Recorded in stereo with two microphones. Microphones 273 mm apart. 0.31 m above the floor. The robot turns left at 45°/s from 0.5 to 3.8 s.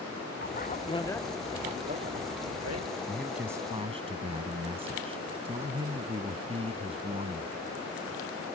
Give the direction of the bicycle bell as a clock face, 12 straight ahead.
11 o'clock.